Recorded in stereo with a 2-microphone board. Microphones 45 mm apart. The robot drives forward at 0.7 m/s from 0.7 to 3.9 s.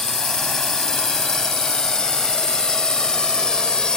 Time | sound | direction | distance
0.0 | a drone | 10° left (ahead or behind) | ?